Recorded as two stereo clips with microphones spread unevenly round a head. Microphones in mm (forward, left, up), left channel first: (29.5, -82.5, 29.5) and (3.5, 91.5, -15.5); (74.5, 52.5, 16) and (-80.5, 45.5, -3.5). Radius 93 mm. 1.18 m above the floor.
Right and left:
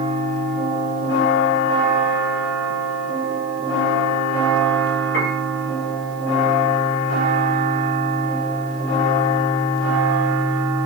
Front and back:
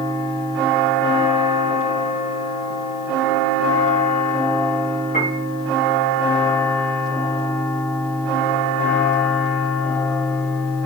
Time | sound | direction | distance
5.1 | a piano | 55° right | 4 m